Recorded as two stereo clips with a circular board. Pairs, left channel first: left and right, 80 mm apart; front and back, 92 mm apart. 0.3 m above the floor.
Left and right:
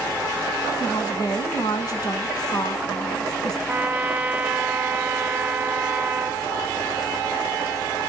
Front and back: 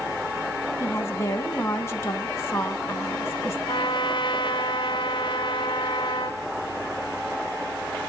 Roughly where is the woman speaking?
Ahead left.